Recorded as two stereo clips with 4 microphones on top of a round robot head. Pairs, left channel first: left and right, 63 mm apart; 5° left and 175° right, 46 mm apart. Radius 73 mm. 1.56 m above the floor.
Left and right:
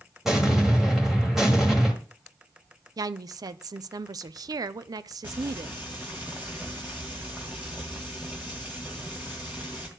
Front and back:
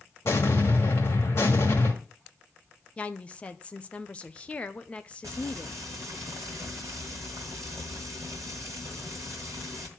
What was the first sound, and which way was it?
An explosion, 5° right.